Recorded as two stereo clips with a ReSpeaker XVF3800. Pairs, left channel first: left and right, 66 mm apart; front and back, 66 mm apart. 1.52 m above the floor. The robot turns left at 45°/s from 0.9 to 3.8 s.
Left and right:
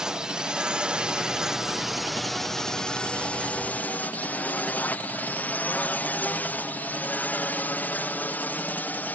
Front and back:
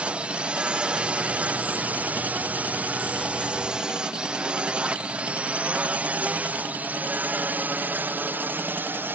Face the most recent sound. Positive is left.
turn(degrees=140)